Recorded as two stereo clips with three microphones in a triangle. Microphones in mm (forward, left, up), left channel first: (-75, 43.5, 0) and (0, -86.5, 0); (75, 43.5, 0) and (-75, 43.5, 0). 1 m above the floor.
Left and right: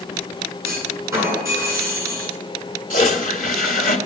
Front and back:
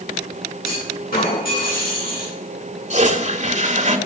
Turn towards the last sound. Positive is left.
turn(degrees=140)